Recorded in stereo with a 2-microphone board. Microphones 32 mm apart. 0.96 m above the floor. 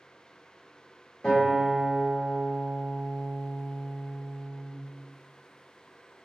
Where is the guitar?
20° left (ahead or behind), 1.1 m.